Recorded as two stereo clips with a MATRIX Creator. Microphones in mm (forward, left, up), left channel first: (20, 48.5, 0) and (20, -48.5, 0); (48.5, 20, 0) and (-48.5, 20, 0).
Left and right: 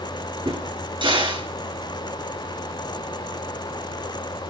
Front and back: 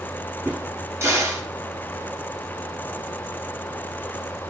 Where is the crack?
120° right, 6.5 m.